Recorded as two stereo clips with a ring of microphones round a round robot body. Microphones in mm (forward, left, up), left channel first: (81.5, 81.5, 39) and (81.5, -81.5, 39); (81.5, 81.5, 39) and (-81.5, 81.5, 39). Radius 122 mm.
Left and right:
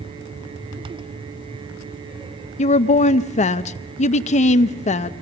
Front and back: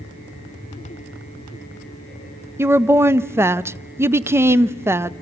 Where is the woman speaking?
110° left, 0.6 m.